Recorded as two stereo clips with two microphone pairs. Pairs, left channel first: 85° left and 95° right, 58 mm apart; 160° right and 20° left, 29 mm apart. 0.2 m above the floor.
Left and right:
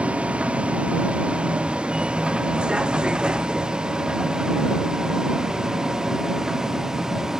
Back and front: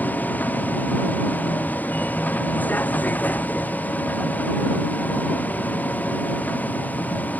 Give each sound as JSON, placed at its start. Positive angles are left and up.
{"t": 0.0, "sound": "a vehicle", "azimuth_deg": -165}